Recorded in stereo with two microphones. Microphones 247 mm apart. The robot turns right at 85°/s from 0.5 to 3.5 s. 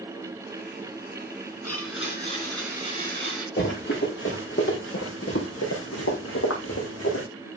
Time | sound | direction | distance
1.6 | a blender | 95° left | 2.5 m
3.6 | running footsteps | 45° left (ahead or behind) | 3 m